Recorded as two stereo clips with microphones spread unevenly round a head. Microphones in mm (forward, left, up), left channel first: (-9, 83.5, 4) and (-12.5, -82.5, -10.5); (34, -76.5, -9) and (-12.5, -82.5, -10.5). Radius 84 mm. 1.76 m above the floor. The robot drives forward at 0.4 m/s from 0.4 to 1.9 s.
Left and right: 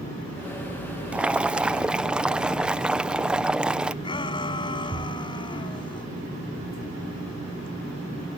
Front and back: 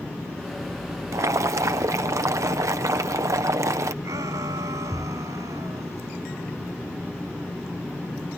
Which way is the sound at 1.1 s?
175° right.